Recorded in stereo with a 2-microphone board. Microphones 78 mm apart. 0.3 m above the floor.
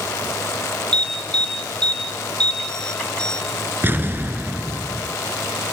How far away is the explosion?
About 2.5 m.